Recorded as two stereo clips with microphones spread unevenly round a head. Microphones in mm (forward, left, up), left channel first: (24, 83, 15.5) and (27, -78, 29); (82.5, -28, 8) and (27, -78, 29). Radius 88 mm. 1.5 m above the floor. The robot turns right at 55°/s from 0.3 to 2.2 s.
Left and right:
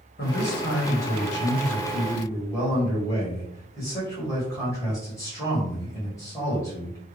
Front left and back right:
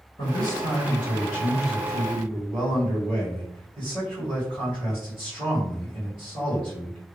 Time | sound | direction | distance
0.2 | a man speaking | 60° left | 1.8 m